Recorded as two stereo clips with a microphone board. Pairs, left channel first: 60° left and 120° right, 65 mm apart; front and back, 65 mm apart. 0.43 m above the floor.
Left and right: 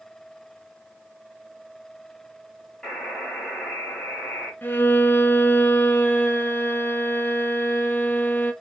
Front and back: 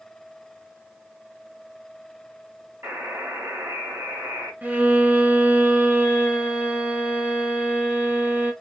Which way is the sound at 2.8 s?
135° left.